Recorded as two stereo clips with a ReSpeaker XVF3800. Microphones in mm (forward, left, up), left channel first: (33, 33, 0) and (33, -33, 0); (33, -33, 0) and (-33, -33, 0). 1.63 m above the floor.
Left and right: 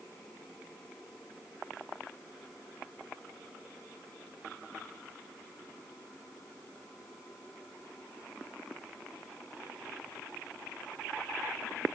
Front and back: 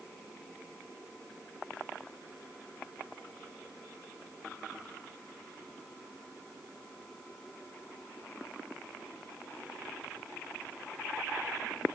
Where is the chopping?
I don't hear chopping.